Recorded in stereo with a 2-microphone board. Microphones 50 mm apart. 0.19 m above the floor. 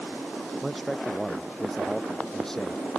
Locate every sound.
0.6 s a man speaking: centre (ahead or behind); by 2.8 s 10° left (ahead or behind)